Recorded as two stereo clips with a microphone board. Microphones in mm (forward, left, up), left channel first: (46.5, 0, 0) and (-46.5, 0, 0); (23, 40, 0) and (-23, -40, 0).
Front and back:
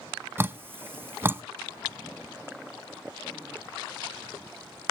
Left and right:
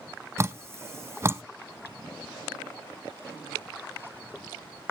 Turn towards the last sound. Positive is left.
turn(degrees=-145)